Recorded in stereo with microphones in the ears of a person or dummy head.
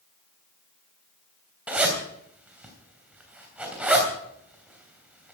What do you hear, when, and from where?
1.7 s a zipper: 10° right (ahead or behind), 3 m